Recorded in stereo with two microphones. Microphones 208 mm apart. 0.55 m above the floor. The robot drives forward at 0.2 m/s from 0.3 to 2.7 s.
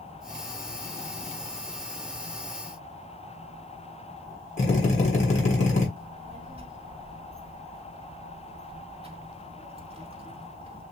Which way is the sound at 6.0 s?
30° right (ahead or behind).